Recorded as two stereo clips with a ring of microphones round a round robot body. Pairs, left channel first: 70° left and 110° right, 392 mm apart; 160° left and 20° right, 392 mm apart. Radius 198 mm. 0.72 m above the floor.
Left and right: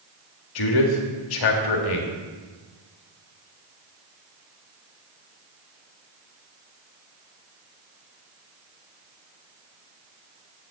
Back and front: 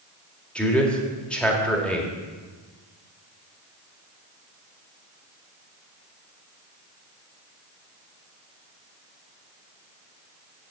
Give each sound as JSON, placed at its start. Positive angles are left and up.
{"t": 0.6, "sound": "a man speaking", "azimuth_deg": 70, "distance_m": 1.8}